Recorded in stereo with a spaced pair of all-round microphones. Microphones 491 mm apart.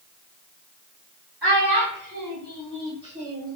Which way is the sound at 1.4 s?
50° right (ahead or behind).